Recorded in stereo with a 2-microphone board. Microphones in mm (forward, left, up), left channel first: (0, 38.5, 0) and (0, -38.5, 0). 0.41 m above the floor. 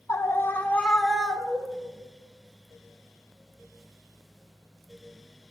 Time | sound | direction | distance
0.1 | a scream | 40° left (ahead or behind) | 1.3 m